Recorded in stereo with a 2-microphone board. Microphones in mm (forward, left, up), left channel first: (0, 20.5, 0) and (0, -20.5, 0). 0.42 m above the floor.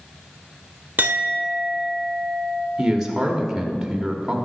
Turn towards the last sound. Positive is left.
turn(degrees=-10)  # may be behind; listen again after turning